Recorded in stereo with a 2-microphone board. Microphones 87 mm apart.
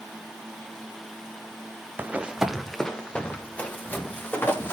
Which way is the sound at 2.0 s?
25° right (ahead or behind).